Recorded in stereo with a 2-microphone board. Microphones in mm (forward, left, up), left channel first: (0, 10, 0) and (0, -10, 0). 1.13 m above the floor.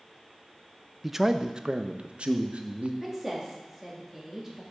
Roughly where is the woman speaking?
Centre.